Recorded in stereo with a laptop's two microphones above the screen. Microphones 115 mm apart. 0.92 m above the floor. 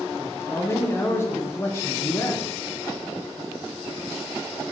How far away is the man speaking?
About 0.7 m.